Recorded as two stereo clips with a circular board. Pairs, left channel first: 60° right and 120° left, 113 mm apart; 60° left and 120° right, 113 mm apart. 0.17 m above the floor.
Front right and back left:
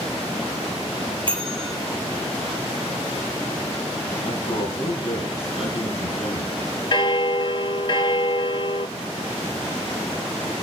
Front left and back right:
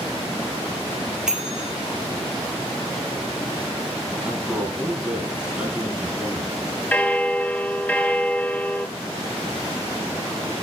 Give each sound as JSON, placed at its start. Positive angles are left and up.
{"t": 1.3, "sound": "a bell", "azimuth_deg": 155, "distance_m": 2.5}
{"t": 4.2, "sound": "a man speaking", "azimuth_deg": -40, "distance_m": 4.5}
{"t": 6.9, "sound": "a bell", "azimuth_deg": -15, "distance_m": 0.6}